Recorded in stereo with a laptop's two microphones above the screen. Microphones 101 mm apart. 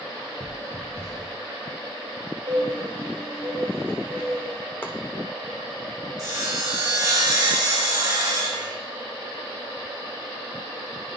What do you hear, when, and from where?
0.4 s footsteps: 35° left (ahead or behind), 1.3 m
2.5 s a bird: 60° right (ahead or behind), 1.5 m
4.8 s chopping: 20° left (ahead or behind), 0.7 m
6.2 s sawing: 45° right (ahead or behind), 3 m